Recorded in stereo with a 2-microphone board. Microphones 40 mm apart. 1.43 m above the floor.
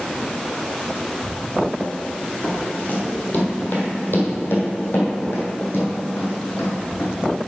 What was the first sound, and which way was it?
Running footsteps, 25° left (ahead or behind).